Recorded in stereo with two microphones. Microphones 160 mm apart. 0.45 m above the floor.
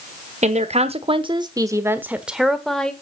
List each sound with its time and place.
0.4 s a woman speaking: 50° right (ahead or behind), 1.1 m; by 2.9 s 5° left (ahead or behind), 1.4 m